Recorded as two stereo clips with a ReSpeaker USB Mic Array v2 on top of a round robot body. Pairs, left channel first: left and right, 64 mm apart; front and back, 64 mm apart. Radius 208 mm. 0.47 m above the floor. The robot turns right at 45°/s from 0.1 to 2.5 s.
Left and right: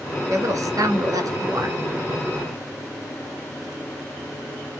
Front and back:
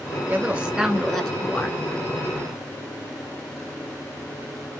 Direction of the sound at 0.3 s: 120° right.